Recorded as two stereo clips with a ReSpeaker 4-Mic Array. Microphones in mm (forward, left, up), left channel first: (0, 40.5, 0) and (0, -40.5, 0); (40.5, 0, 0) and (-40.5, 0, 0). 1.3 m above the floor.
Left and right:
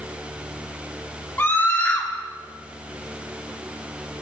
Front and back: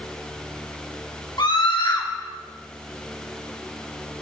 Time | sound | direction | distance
1.4 | a scream | 25° left | 1.3 m